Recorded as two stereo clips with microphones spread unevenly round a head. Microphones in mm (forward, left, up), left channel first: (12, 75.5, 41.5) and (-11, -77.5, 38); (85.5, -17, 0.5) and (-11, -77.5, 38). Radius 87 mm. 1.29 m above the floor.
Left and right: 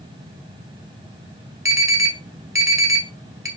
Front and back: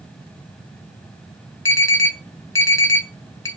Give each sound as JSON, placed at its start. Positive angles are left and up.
{"t": 1.6, "sound": "an alarm", "azimuth_deg": -25, "distance_m": 3.5}